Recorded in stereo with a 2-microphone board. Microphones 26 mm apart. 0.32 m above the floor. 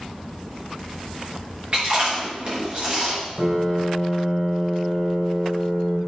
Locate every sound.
1.7 s chewing: 45° right (ahead or behind), 3.5 m
3.4 s a piano: 55° right (ahead or behind), 3 m